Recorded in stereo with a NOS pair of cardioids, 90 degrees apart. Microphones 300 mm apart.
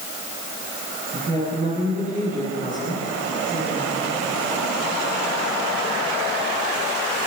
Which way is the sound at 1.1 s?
30° right.